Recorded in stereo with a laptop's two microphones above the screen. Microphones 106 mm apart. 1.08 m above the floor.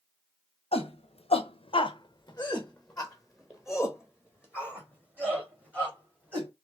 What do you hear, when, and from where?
0.7 s a shout: 75° left (ahead or behind), 0.8 m; by 6.5 s 20° right (ahead or behind), 2.5 m